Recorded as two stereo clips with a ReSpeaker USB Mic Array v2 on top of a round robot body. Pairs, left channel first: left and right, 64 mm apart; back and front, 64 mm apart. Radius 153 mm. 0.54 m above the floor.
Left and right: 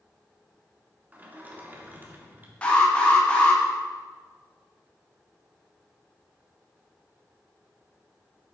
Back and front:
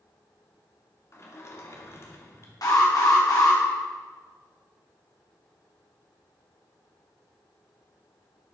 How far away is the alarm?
About 3 m.